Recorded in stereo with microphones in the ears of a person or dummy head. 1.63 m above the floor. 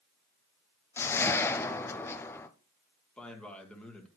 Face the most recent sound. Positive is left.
turn(degrees=0)  # may be behind; listen again after turning